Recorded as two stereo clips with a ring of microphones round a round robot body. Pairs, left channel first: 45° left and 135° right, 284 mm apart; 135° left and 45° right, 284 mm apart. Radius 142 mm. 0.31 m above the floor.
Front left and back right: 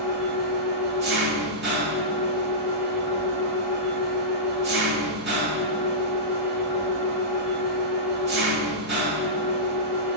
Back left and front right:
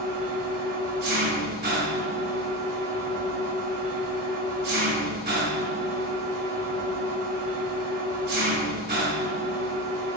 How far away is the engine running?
About 1.8 m.